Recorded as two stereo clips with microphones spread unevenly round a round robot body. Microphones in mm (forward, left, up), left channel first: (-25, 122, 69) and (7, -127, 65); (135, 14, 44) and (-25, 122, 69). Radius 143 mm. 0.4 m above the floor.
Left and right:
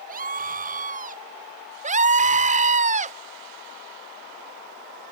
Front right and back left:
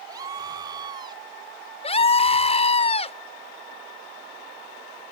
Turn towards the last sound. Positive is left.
turn(degrees=-45)